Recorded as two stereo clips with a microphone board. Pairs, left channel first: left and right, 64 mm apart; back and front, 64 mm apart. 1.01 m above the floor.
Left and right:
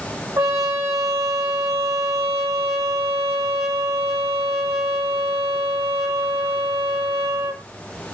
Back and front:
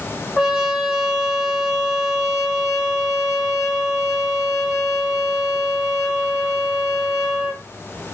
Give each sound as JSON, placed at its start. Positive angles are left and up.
{"t": 0.4, "sound": "a trumpet", "azimuth_deg": -80, "distance_m": 1.4}